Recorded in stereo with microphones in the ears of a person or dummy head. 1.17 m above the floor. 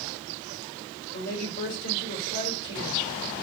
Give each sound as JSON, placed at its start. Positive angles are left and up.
{"t": 1.1, "sound": "a woman speaking", "side_deg": 75, "distance_m": 3.5}